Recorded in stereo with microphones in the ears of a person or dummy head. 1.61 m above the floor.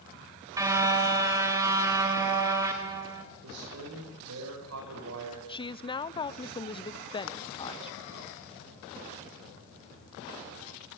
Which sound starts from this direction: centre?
A car horn, at 0.6 s.